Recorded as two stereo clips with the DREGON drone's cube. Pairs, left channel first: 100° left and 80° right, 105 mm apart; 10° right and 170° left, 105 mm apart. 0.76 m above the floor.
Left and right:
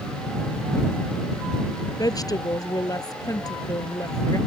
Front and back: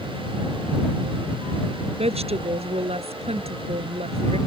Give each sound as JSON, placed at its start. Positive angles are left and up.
{"t": 2.0, "sound": "a woman speaking", "azimuth_deg": 155}